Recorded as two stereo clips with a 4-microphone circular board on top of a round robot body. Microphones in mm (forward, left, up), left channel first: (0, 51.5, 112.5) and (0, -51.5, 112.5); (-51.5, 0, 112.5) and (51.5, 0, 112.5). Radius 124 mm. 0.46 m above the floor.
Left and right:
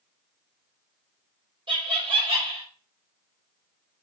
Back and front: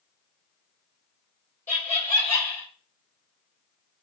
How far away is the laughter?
About 2.0 m.